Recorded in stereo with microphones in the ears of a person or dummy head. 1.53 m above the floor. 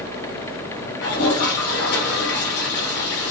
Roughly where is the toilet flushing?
Left.